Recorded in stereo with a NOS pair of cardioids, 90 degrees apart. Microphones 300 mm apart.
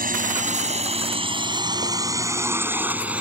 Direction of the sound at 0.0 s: 25° right.